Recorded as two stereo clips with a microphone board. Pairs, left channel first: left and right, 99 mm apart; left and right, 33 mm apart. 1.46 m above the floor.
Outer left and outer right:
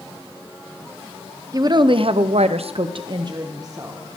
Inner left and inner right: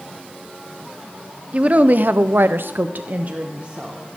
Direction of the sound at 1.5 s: 35° right (ahead or behind).